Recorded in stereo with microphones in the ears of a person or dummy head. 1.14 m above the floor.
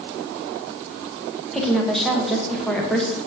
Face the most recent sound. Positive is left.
turn(degrees=0)  # may be behind; listen again after turning